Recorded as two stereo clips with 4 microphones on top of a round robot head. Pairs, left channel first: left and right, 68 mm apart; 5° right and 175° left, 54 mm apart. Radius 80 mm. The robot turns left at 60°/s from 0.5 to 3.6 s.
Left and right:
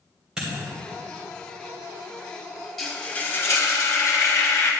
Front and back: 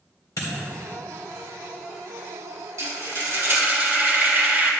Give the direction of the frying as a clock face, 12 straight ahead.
6 o'clock.